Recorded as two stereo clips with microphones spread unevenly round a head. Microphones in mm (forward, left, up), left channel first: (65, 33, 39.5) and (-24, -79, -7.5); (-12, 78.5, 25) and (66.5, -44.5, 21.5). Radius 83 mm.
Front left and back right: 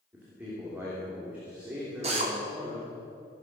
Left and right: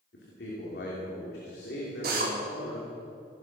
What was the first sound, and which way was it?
A man speaking, 150° left.